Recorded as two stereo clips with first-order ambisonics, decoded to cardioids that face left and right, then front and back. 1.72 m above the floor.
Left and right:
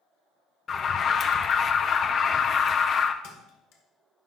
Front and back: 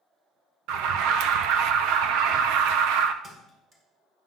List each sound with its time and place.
0.7 s an alarm: 155° left, 0.5 m
3.2 s a thud: 110° left, 1.8 m